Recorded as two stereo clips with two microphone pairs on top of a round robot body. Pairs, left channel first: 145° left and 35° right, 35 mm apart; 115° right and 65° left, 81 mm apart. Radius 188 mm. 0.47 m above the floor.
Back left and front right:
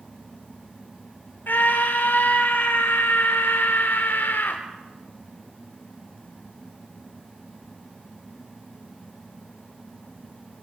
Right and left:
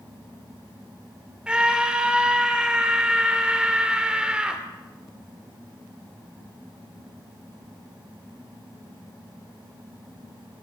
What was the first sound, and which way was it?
A scream, 145° left.